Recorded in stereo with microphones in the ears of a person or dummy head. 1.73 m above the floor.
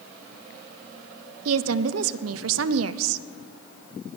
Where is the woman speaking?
90° right, 0.6 m.